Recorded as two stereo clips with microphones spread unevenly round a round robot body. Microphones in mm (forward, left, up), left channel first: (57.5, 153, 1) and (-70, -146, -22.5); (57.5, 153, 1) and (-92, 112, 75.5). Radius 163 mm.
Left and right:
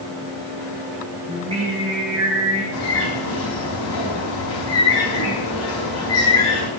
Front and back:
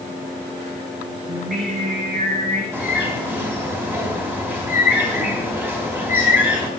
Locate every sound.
1.3 s singing: 175° left, 5.5 m
2.7 s a bird: 115° left, 3.5 m